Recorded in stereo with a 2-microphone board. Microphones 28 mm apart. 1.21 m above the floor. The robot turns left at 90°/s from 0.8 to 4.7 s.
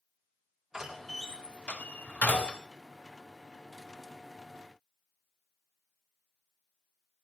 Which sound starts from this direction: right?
A door slam, at 0.7 s.